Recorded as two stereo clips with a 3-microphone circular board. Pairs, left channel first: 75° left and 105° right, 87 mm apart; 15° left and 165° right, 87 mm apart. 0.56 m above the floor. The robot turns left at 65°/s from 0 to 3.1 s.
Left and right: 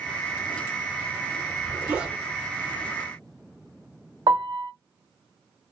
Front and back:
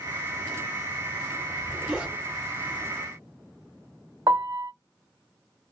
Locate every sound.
1.5 s a zipper: 125° right, 1.3 m; by 2.2 s 170° right, 1.3 m
4.3 s a piano: 130° right, 0.8 m